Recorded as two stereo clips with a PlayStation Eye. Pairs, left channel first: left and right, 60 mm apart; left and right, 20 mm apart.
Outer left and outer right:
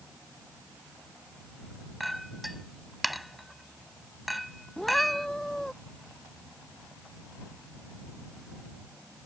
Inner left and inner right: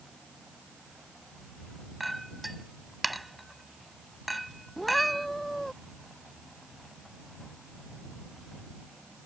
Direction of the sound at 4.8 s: 5° left (ahead or behind).